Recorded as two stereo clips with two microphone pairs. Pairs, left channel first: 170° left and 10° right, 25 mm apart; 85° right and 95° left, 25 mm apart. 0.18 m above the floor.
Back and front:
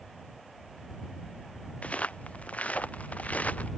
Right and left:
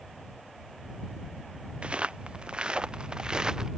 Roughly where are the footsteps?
Behind left.